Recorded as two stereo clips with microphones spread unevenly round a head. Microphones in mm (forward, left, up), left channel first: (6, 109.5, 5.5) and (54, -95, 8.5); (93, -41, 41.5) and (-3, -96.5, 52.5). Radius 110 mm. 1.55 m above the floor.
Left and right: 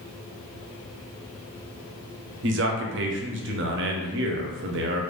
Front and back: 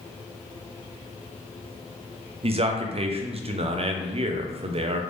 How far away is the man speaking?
About 0.6 m.